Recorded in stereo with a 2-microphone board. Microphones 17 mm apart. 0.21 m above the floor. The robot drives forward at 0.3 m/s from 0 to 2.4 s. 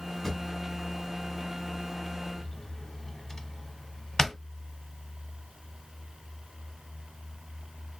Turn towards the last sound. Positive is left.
turn(degrees=25)  # may be behind; listen again after turning